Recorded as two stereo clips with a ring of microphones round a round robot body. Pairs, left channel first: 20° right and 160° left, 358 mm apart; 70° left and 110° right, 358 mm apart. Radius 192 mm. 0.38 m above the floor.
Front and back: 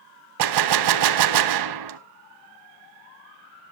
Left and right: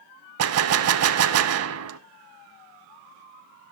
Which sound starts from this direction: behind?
A gunshot, at 0.4 s.